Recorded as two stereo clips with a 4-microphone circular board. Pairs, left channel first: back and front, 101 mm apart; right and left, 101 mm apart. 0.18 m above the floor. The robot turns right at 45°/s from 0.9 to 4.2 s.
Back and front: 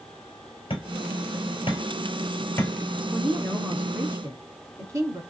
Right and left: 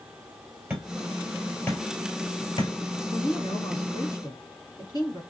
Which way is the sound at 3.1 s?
100° right.